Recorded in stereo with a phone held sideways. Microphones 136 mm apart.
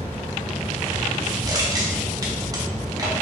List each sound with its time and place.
0.0 s a fan: 40° left (ahead or behind), 1.7 m
1.5 s crushing: 25° right (ahead or behind), 0.8 m